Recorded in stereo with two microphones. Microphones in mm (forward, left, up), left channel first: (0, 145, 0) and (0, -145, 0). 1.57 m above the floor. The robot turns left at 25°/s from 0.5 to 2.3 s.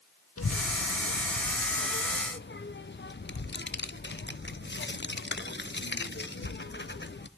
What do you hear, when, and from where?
0.4 s a child speaking: 55° left (ahead or behind), 0.6 m; by 7.3 s 40° left (ahead or behind), 0.6 m